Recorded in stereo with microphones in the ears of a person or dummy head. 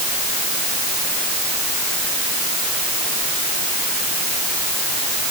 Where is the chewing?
I don't hear chewing.